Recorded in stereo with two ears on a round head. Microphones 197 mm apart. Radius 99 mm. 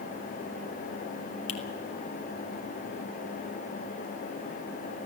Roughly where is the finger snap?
Left.